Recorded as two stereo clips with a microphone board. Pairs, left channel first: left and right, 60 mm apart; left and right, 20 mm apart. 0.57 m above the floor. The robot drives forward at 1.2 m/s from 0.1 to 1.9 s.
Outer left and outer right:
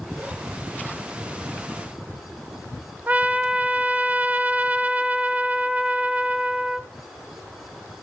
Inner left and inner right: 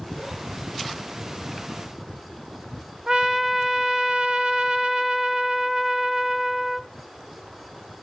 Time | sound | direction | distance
3.1 | a trumpet | 25° right (ahead or behind) | 1.0 m